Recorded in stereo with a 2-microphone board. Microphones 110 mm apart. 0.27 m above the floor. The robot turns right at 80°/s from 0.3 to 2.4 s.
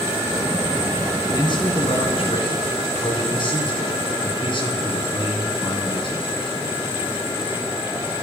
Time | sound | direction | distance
1.3 | a man speaking | 35° left | 2.5 m